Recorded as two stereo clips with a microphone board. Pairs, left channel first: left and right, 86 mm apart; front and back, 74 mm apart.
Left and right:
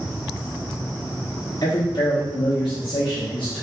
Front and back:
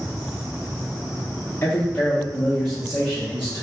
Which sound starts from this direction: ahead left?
A man speaking, at 1.6 s.